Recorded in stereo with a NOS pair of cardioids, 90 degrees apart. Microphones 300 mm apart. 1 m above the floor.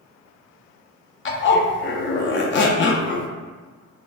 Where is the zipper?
40° left, 0.6 m.